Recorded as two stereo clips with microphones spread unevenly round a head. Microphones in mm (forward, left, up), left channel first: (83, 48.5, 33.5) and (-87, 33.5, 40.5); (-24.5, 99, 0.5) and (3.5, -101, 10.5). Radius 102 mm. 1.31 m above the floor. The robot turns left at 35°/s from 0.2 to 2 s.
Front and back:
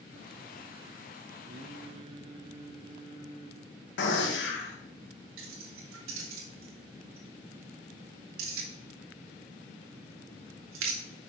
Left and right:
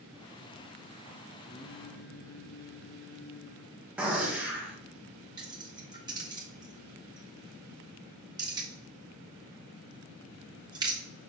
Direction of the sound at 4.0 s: 5° left.